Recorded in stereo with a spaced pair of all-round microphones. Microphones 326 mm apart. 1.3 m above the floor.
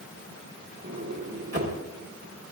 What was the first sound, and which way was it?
A sliding door, 45° right (ahead or behind).